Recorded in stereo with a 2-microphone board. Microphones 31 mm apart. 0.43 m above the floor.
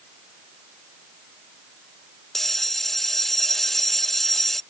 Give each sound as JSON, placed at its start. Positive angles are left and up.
{"t": 2.3, "sound": "a bell", "side_deg": 10}